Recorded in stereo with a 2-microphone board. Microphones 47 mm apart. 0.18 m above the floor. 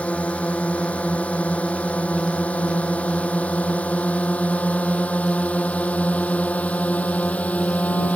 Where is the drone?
30° left (ahead or behind).